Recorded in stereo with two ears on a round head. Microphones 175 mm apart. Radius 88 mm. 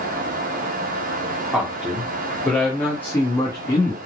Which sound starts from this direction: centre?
A man speaking, at 1.5 s.